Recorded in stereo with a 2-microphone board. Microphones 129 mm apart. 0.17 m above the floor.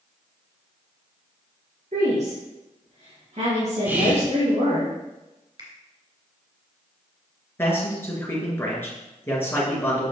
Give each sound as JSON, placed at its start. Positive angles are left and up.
{"t": 1.9, "sound": "a woman speaking", "side_deg": -65, "distance_m": 3.0}
{"t": 3.9, "sound": "whispering", "side_deg": -15, "distance_m": 1.1}
{"t": 5.6, "sound": "a finger snap", "side_deg": -40, "distance_m": 2.0}
{"t": 7.6, "sound": "a man speaking", "side_deg": 15, "distance_m": 3.0}